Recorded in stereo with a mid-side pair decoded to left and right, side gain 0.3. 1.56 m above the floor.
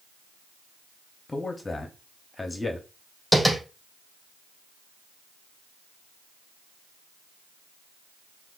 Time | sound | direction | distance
1.3 | a man speaking | 30° left | 0.9 m
3.3 | tapping | 10° right | 3.5 m